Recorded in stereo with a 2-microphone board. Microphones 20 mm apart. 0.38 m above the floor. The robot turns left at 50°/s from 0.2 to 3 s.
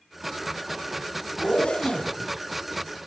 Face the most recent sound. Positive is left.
turn(degrees=10)